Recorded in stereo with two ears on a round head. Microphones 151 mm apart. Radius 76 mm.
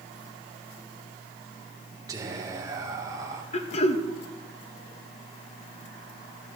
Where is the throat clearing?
35° left (ahead or behind), 0.9 m.